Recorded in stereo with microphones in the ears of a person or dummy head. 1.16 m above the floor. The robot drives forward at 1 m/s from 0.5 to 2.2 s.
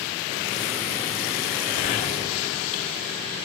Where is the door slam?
45° left (ahead or behind), 2 m; by 3.5 s 40° left (ahead or behind), 2.5 m.